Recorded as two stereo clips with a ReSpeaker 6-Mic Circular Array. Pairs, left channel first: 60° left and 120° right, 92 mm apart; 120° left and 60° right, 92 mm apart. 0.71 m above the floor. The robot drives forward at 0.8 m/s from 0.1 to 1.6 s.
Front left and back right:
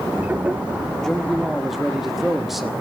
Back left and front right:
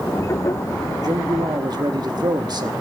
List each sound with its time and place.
1.0 s a man speaking: 25° right, 1.6 m; by 2.7 s 35° right, 1.3 m